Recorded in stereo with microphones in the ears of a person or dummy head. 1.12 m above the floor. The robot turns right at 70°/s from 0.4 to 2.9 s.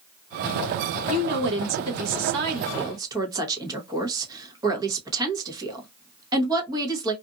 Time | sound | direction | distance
1.1 | a woman speaking | 145° right | 1.0 m